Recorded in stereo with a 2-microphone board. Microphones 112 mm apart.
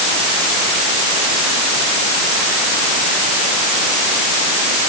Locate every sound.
Only background noise.